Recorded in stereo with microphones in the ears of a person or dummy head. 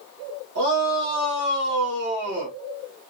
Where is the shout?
85° right, 2 m.